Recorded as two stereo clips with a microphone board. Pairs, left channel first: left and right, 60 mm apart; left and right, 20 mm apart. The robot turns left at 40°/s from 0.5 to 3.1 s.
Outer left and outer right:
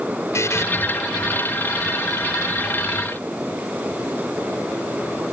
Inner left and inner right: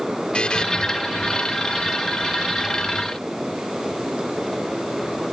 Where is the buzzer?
60° left (ahead or behind); by 0.7 s 50° left (ahead or behind).